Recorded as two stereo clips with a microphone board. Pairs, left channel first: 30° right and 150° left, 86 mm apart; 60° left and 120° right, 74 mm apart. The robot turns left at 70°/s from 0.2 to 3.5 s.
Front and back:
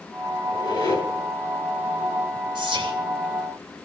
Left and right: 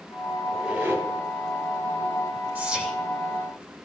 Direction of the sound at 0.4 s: 30° right.